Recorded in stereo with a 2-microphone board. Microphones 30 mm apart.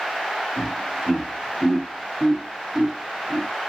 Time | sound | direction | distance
0.6 | laughter | 40° left (ahead or behind) | 1.6 m